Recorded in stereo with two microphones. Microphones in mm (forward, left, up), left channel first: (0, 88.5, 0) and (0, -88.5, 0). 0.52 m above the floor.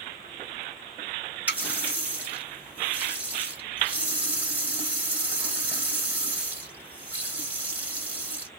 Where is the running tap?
10° right (ahead or behind), 1.5 m.